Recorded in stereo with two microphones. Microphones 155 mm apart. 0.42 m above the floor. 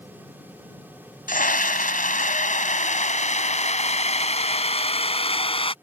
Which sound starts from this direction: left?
A scream, at 1.3 s.